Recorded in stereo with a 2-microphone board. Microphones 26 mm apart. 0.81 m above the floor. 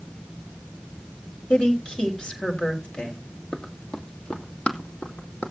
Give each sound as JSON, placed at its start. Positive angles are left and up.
{"t": 1.5, "sound": "a woman speaking", "side_deg": 35, "distance_m": 3.5}
{"t": 3.5, "sound": "running footsteps", "side_deg": 30, "distance_m": 1.5}